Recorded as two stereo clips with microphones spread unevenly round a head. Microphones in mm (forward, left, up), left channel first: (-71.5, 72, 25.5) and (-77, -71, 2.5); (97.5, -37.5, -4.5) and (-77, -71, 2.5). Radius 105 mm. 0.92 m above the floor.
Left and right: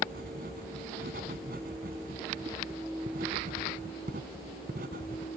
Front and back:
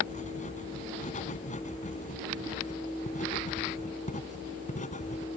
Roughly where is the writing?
Ahead right.